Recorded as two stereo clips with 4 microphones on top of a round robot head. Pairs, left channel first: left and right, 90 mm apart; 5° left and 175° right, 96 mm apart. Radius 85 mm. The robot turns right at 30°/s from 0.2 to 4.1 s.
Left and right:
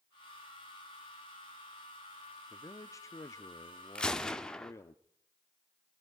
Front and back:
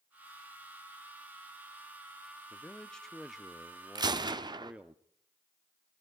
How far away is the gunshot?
About 1.2 m.